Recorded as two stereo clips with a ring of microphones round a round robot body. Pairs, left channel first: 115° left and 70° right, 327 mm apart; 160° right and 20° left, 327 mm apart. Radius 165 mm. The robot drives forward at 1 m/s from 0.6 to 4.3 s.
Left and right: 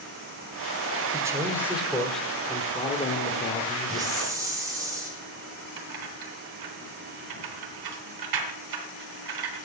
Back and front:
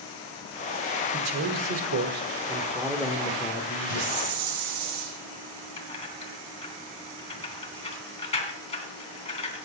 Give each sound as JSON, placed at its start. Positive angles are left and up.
{"t": 1.1, "sound": "a man speaking", "azimuth_deg": 10, "distance_m": 2.0}
{"t": 3.9, "sound": "a hiss", "azimuth_deg": 15, "distance_m": 5.0}
{"t": 5.8, "sound": "keys jangling", "azimuth_deg": -85, "distance_m": 3.0}